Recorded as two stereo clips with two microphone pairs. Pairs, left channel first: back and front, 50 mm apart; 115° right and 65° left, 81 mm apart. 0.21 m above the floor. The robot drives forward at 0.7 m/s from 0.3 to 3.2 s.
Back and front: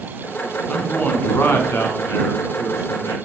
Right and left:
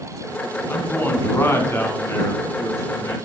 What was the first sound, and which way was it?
A man speaking, 155° right.